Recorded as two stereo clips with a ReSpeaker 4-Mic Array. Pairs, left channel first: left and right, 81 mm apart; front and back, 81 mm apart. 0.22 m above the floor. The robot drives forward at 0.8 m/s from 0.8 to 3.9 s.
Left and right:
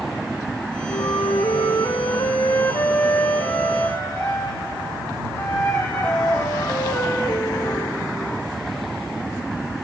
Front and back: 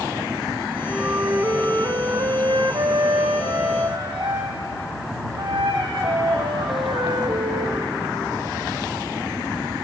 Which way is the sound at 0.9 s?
105° left.